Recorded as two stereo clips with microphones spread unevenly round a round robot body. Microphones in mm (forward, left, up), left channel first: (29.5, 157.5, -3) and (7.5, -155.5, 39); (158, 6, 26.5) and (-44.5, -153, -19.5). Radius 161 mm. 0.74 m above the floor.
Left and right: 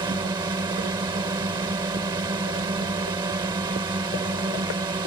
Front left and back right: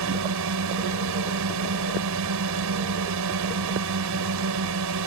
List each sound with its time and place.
0.0 s a drone: 175° right